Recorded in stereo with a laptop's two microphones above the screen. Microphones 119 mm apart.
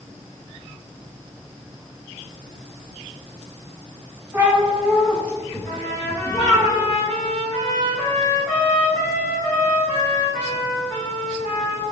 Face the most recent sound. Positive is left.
turn(degrees=25)  # may be behind; listen again after turning